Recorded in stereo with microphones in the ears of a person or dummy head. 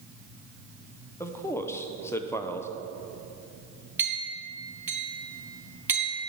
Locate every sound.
1.2 s a man speaking: 15° left (ahead or behind), 0.7 m
4.0 s a clink: 10° right (ahead or behind), 2 m